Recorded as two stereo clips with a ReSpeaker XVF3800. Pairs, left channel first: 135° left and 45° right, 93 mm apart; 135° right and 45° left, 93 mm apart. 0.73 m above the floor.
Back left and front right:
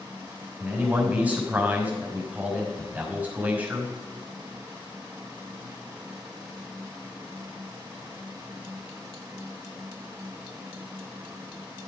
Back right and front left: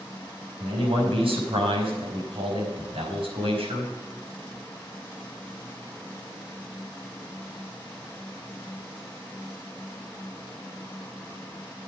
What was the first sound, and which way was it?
A man speaking, 30° left.